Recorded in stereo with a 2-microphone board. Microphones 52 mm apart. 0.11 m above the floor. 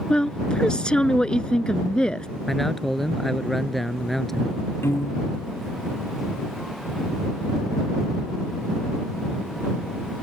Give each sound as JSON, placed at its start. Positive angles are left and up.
{"t": 0.1, "sound": "a woman speaking", "side_deg": 15}
{"t": 2.5, "sound": "a man speaking", "side_deg": 5}
{"t": 4.8, "sound": "a piano", "side_deg": 50}